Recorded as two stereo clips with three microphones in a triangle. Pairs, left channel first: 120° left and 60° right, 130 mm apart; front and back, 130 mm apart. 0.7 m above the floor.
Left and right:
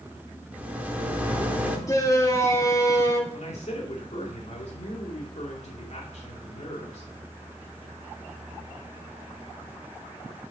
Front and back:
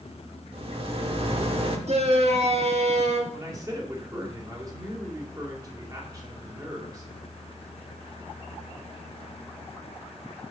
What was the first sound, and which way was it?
A rattle, 140° right.